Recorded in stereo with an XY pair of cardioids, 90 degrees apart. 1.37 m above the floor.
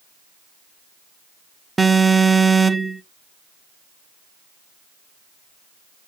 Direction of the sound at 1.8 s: 25° right.